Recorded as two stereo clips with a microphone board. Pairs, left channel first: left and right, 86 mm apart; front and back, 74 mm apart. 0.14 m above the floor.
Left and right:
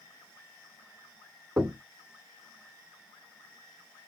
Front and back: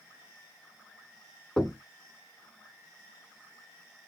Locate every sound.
1.6 s knocking: 70° right, 1.2 m